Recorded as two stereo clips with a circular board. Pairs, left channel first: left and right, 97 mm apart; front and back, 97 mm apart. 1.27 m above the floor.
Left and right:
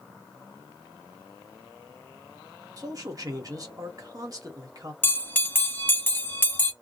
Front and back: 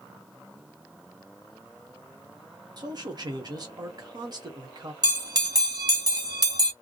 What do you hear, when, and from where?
2.8 s a man speaking: 140° right, 1.1 m
5.0 s a bell: 155° left, 0.8 m